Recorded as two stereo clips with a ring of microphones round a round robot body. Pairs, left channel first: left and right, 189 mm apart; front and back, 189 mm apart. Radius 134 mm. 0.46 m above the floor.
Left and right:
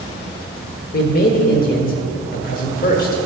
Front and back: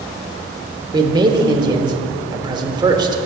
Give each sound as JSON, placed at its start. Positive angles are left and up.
{"t": 0.9, "sound": "a man speaking", "azimuth_deg": 120, "distance_m": 1.1}